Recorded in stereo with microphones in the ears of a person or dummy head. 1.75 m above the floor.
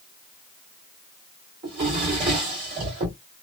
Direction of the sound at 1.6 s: 45° right (ahead or behind).